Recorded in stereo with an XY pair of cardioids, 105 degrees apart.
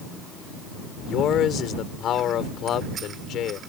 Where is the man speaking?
70° left.